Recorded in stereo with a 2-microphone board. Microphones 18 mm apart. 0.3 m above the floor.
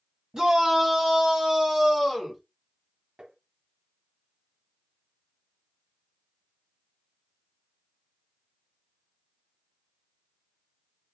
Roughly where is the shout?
Right.